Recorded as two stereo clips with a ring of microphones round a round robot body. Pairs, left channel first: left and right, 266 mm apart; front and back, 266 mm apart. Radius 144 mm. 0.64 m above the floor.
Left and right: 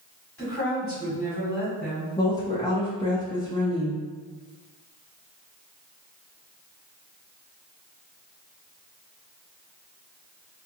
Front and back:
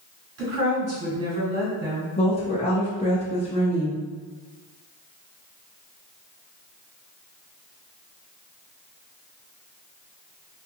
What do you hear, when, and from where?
0.4 s a woman speaking: 165° left, 1.7 m
2.2 s a woman speaking: 30° left, 0.5 m